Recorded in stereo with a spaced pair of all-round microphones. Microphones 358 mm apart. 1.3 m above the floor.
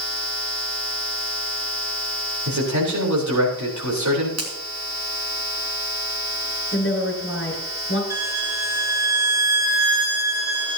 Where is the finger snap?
45° right (ahead or behind), 2.5 m.